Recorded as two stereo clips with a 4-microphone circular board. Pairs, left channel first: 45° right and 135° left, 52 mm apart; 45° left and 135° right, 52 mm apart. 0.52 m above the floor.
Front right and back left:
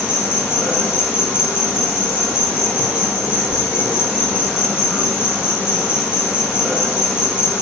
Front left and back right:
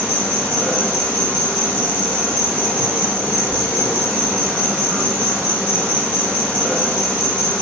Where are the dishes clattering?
No dishes clattering in this recording.